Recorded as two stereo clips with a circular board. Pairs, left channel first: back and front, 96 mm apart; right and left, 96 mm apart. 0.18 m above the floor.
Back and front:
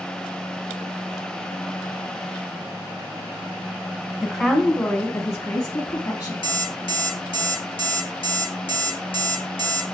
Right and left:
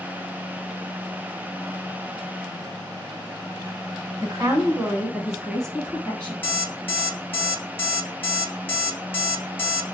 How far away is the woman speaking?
About 1.2 m.